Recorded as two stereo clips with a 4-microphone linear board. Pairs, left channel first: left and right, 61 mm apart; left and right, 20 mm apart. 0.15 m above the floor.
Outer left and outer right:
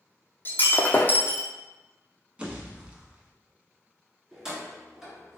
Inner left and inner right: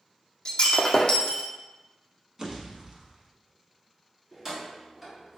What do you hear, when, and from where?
0.5 s breaking glass: 35° left (ahead or behind), 0.5 m
2.4 s a pop: 20° right (ahead or behind), 0.7 m
4.3 s keys jangling: 10° right (ahead or behind), 1.5 m